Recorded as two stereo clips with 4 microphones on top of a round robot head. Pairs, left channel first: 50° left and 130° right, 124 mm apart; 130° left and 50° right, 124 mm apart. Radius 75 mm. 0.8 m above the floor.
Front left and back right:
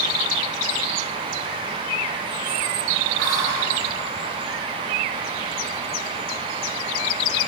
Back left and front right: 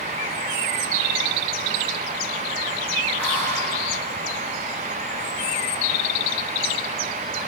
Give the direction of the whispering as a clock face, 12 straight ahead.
5 o'clock.